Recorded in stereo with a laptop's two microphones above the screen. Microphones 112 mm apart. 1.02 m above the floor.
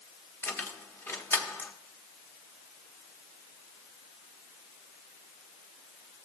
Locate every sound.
0.4 s keys jangling: 20° left (ahead or behind), 1.0 m